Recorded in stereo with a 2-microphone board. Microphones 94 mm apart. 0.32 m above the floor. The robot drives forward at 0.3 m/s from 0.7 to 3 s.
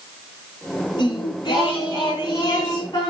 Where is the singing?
50° left (ahead or behind), 4.5 m; by 3.1 s 45° left (ahead or behind), 4.5 m.